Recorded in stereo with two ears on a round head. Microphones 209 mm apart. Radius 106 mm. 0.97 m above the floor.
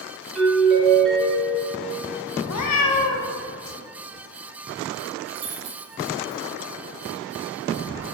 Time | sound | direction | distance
0.3 | a doorbell | 5° left (ahead or behind) | 2.5 m
2.5 | a cat meowing | 75° left (ahead or behind) | 0.8 m
5.3 | keys jangling | 70° right (ahead or behind) | 2 m